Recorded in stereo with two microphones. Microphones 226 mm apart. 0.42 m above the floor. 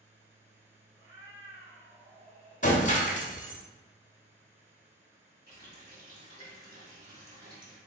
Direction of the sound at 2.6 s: 35° left (ahead or behind).